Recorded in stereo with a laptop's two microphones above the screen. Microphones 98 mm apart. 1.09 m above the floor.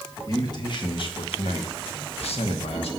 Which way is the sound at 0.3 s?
40° left (ahead or behind).